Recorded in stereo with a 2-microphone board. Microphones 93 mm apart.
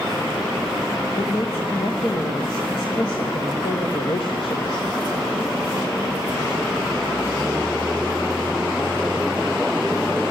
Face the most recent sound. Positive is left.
turn(degrees=70)  # may be behind; listen again after turning